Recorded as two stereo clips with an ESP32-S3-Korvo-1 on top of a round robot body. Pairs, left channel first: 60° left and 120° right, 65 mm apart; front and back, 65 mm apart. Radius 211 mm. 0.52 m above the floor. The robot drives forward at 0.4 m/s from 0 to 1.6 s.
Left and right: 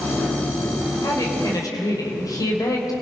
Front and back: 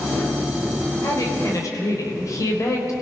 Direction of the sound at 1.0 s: 35° left.